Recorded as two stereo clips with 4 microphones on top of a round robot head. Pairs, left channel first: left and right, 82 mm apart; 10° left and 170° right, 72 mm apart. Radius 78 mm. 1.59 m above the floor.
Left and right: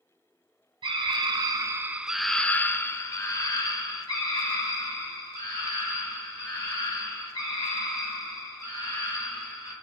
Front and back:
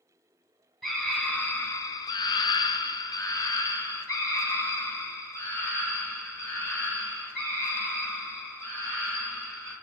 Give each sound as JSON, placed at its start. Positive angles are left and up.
{"t": 0.8, "sound": "a scream", "azimuth_deg": -75, "distance_m": 0.9}